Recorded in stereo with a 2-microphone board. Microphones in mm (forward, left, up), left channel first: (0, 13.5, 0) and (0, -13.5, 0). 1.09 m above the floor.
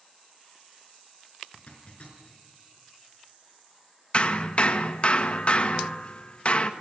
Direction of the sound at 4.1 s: 40° left (ahead or behind).